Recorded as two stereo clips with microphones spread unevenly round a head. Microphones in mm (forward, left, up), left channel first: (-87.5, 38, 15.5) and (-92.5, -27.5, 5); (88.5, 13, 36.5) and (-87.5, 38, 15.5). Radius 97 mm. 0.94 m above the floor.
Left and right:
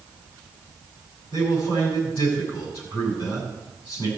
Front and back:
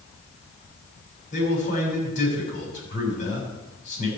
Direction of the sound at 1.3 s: 40° left.